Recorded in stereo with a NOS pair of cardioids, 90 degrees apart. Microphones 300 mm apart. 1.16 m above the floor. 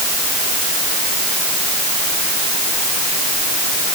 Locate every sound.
Only background noise.